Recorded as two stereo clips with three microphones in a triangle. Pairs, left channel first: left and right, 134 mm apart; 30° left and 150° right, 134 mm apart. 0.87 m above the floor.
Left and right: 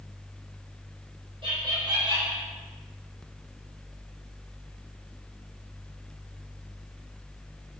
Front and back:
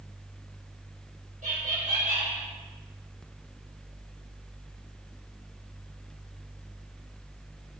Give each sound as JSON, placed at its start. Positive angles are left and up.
{"t": 1.4, "sound": "laughter", "azimuth_deg": -140, "distance_m": 3.5}